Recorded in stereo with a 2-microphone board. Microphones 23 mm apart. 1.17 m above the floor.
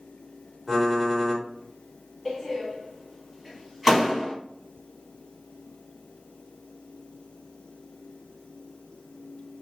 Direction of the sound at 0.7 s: 5° left (ahead or behind).